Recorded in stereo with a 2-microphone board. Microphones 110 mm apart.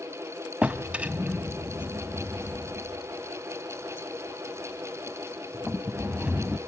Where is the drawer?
10° right (ahead or behind), 0.6 m.